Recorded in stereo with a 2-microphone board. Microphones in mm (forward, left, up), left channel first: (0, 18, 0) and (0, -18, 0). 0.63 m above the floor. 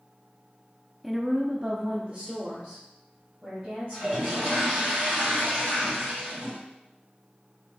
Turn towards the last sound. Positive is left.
turn(degrees=-20)  # may be behind; listen again after turning